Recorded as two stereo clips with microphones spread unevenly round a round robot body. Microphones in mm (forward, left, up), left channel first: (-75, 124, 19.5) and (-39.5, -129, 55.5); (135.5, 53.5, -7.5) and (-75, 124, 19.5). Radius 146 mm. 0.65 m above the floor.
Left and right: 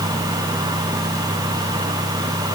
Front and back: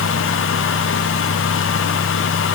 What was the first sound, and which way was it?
Only background noise.